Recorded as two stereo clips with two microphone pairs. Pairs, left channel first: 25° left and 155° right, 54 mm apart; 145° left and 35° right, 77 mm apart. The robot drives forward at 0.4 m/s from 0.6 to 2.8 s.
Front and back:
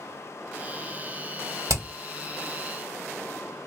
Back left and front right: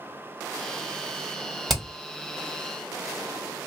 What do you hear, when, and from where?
1.7 s hammering: 125° right, 1.8 m